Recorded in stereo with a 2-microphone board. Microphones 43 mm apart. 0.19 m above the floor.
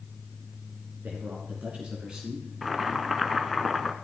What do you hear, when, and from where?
1.0 s a man speaking: 40° right (ahead or behind), 3 m; by 2.5 s 10° right (ahead or behind), 2.5 m
2.6 s boiling: centre (ahead or behind), 1.2 m